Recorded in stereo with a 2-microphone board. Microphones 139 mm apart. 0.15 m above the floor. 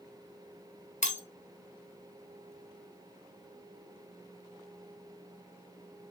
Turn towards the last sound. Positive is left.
turn(degrees=60)  # may be behind; listen again after turning